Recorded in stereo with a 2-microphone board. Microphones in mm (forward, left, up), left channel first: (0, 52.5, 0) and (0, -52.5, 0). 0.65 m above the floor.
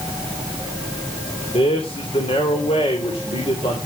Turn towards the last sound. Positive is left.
turn(degrees=65)  # may be behind; listen again after turning